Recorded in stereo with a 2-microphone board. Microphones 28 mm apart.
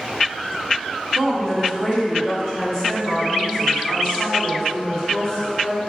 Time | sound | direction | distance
1.1 | a woman speaking | centre (ahead or behind) | 1.1 m